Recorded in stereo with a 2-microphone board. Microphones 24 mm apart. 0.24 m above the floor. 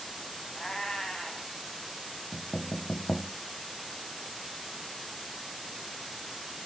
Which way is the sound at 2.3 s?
25° left (ahead or behind).